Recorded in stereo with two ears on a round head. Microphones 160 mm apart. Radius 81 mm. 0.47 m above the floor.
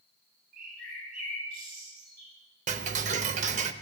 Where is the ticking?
40° right (ahead or behind), 0.6 m.